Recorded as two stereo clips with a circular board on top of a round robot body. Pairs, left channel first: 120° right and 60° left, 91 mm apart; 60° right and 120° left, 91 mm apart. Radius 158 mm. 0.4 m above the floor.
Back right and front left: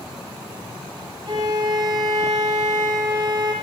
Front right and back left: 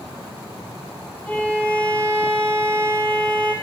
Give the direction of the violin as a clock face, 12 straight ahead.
12 o'clock.